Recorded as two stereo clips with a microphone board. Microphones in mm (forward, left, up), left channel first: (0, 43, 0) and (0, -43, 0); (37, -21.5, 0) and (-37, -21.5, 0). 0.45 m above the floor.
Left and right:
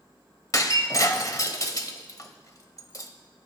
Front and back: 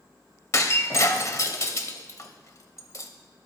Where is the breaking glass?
45° left, 1.0 m.